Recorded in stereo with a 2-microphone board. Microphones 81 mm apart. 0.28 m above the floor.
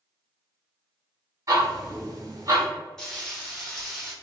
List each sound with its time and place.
1.5 s ticking: 45° right (ahead or behind), 1.8 m
3.0 s frying: 5° left (ahead or behind), 1.3 m